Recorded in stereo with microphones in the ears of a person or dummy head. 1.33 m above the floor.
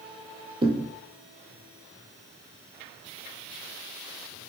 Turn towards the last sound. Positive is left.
turn(degrees=-25)  # may be behind; listen again after turning